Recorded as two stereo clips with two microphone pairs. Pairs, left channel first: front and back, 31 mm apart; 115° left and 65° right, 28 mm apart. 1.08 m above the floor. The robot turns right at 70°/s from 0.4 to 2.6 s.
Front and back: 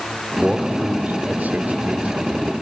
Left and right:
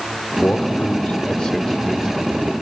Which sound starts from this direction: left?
A man speaking, at 0.4 s.